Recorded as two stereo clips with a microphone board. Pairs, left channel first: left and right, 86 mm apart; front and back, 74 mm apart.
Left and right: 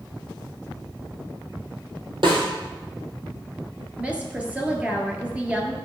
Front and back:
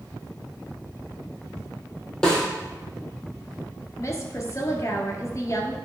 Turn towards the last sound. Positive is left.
turn(degrees=-20)